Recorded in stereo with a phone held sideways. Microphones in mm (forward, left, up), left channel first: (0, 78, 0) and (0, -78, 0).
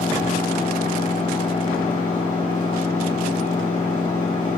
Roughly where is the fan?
Left.